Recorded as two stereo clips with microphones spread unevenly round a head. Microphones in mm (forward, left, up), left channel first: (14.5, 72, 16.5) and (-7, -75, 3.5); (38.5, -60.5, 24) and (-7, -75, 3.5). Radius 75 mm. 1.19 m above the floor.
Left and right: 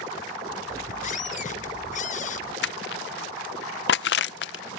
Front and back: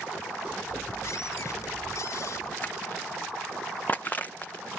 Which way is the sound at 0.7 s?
45° left.